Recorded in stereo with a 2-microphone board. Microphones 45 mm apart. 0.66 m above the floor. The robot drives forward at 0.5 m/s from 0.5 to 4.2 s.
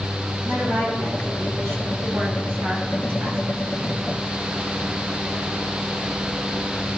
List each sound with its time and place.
0.5 s a woman speaking: 80° right, 5.5 m; by 3.4 s 75° right (ahead or behind), 5.5 m